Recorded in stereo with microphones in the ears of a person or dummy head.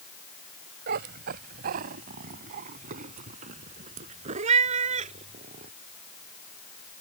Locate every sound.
0.9 s a cat meowing: 45° right (ahead or behind); by 5.7 s 40° right (ahead or behind)